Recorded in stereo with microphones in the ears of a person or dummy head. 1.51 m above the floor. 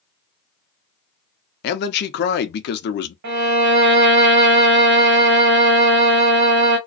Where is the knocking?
No knocking in this recording.